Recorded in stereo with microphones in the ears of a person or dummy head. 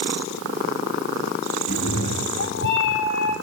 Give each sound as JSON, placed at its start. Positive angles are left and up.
{"t": 1.7, "sound": "a cat meowing", "side_deg": 60, "distance_m": 2.5}